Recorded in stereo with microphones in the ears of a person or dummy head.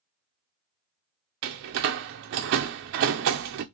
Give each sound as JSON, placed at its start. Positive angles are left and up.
{"t": 1.4, "sound": "a door slam", "side_deg": -45, "distance_m": 0.5}